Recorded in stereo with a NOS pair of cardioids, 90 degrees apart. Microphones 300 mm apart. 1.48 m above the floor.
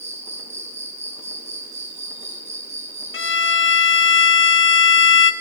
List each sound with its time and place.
0.0 s an insect: 20° right, 6.5 m
3.1 s a violin: 40° left, 2.5 m